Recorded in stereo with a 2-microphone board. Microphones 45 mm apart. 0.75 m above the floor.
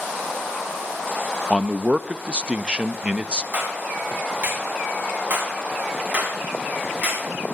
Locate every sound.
1.5 s a man speaking: 25° right (ahead or behind), 0.5 m
3.5 s a clap: 45° right (ahead or behind), 6.5 m